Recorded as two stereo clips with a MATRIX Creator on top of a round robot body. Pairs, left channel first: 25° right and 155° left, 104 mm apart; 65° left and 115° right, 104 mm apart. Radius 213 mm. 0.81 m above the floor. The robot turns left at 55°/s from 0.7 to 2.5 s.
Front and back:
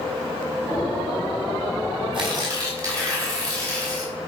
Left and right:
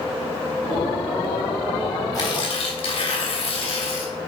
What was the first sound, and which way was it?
Tearing paper, 120° left.